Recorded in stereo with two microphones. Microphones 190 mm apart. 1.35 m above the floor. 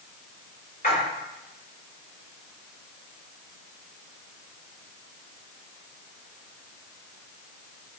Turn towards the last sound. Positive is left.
turn(degrees=50)  # may be behind; listen again after turning